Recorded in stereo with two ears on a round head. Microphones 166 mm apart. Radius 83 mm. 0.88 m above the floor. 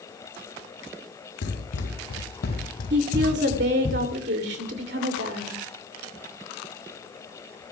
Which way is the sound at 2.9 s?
65° right (ahead or behind).